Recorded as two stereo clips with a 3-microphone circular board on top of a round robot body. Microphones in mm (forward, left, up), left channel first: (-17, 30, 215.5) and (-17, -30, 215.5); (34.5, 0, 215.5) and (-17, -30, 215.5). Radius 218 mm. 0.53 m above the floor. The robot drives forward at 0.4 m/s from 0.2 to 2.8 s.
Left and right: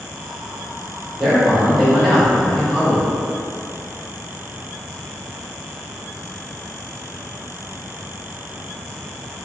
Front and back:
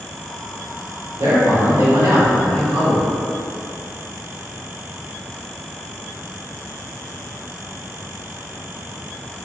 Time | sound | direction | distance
1.2 | a man speaking | 175° right | 1.9 m